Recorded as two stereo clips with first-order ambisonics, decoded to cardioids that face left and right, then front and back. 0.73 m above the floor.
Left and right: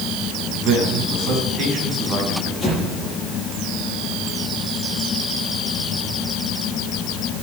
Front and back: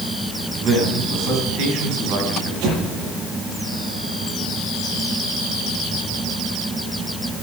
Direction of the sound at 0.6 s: 140° right.